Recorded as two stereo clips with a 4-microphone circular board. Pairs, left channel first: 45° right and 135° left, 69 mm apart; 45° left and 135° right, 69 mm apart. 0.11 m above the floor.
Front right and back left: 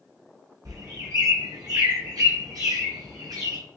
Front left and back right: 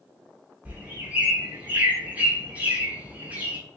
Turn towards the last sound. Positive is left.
turn(degrees=155)